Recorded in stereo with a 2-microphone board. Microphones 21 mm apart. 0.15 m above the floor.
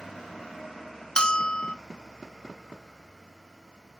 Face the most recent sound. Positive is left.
turn(degrees=45)  # may be behind; listen again after turning